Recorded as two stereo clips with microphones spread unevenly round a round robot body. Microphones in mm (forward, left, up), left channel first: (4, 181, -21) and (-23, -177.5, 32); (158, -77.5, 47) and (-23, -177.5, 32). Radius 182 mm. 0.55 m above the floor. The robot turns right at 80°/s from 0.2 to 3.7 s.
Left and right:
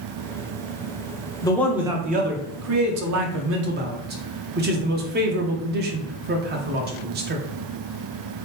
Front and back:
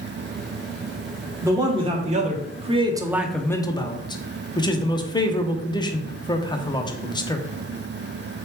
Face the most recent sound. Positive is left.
turn(degrees=-35)